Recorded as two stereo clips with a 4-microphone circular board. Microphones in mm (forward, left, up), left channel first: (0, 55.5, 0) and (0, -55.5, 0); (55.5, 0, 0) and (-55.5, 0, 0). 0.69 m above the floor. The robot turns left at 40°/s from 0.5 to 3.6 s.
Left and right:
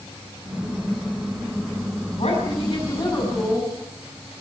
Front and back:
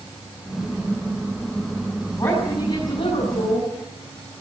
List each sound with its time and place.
2.2 s a woman speaking: 60° left, 6.5 m; by 3.7 s 5° left, 6.5 m